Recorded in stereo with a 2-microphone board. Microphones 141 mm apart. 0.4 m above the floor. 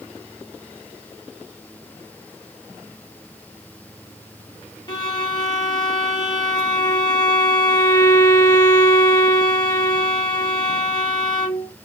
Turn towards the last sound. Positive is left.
turn(degrees=30)  # may be behind; listen again after turning